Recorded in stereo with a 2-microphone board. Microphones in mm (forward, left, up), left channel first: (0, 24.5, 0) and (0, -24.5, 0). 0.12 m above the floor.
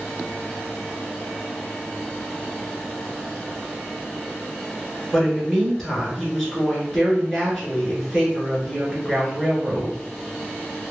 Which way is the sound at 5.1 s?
5° left (ahead or behind).